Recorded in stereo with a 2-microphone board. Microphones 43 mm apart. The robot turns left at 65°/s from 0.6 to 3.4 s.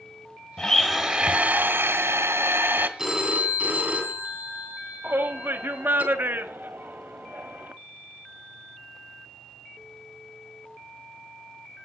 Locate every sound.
0.6 s a blender: 10° left, 1.3 m; by 2.9 s 140° right, 1.3 m
3.0 s a phone ringing: 5° right (ahead or behind), 3.5 m; by 6.0 s 35° right (ahead or behind), 3.5 m
5.0 s a shout: 50° right (ahead or behind), 1.4 m